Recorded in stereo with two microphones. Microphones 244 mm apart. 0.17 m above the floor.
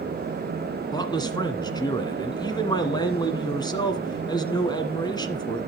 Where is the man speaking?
15° left (ahead or behind), 1.6 m.